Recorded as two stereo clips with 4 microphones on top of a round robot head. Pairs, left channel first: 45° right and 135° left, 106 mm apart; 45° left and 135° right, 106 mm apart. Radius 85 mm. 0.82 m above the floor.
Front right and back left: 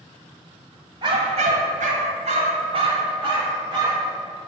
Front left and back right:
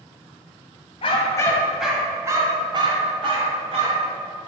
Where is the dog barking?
85° left, 1.3 m; by 4.1 s 170° right, 3.5 m.